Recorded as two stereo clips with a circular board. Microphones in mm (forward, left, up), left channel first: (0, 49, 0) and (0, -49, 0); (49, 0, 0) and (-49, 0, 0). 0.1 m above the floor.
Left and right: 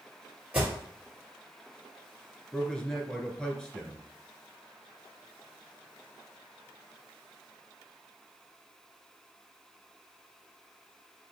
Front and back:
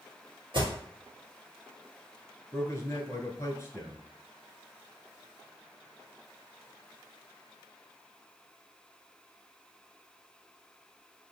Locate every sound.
0.5 s an alarm: 160° right, 2 m
2.5 s a man speaking: 20° left, 1.2 m